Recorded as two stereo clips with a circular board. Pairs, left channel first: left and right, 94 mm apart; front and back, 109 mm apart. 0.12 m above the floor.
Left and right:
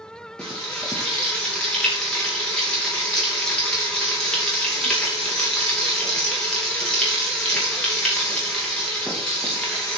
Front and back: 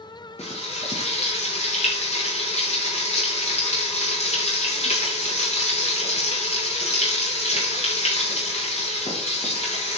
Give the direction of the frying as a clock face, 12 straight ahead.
12 o'clock.